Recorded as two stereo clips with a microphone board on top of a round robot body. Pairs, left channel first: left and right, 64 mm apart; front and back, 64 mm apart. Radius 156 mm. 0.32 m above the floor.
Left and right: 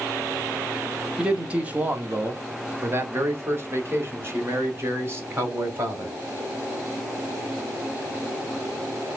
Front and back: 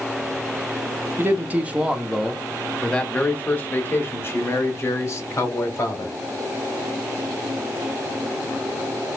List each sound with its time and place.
1.2 s a man speaking: 155° right, 1.2 m; by 6.2 s 40° right, 2.5 m